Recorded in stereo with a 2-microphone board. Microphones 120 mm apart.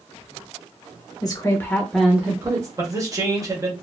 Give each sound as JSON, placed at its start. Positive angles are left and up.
{"t": 1.2, "sound": "a woman speaking", "side_deg": 30, "distance_m": 0.9}
{"t": 2.8, "sound": "a man speaking", "side_deg": -25, "distance_m": 1.1}